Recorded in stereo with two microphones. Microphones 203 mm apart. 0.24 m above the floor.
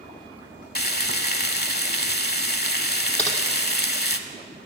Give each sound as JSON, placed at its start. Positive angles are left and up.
{"t": 0.8, "sound": "frying", "side_deg": 55, "distance_m": 0.8}
{"t": 3.2, "sound": "typing on a keyboard", "side_deg": 5, "distance_m": 2.5}